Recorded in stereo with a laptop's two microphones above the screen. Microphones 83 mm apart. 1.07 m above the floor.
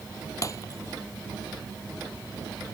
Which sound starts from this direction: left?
Breaking glass, at 0.4 s.